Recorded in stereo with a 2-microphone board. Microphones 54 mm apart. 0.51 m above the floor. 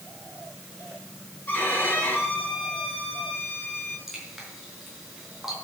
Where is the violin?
35° left (ahead or behind), 7 m.